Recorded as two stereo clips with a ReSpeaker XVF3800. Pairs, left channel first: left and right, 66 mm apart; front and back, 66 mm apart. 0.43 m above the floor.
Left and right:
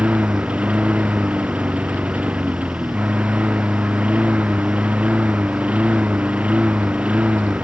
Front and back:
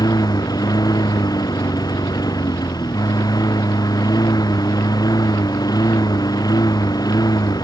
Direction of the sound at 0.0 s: 20° right.